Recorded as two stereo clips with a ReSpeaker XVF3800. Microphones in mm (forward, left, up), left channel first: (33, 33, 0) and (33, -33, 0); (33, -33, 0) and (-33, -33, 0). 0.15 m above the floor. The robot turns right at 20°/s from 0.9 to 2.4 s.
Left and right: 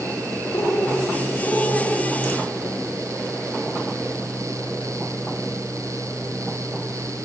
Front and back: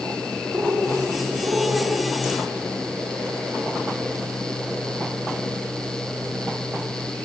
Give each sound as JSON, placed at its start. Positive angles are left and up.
{"t": 0.5, "sound": "a bird", "azimuth_deg": 130, "distance_m": 7.0}